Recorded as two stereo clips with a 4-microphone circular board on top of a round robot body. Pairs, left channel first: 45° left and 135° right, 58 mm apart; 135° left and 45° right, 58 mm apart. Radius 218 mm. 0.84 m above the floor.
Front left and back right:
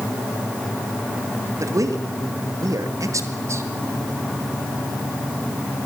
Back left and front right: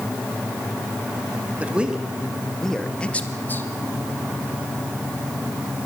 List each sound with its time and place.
1.6 s a man speaking: 110° right, 2.5 m; by 3.6 s 175° right, 2.5 m